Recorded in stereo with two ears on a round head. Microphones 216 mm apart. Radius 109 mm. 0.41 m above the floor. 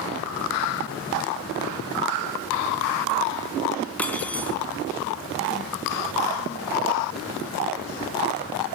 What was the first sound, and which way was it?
Cutlery clinking, 5° left (ahead or behind).